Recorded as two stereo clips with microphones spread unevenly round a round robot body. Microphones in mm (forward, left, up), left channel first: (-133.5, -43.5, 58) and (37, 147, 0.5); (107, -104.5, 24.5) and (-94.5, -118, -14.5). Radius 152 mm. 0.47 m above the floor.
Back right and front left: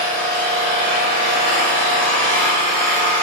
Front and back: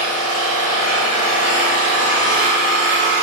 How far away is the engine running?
About 0.8 m.